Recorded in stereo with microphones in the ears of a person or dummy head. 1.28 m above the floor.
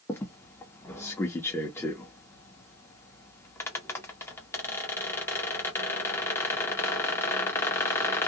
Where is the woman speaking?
I don't hear a woman speaking.